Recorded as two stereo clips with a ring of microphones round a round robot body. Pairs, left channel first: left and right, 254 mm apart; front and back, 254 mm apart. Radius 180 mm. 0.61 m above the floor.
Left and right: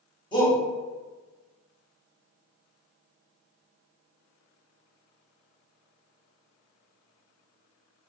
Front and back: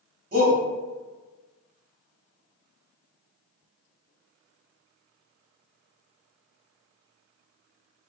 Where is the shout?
155° left, 1.1 m.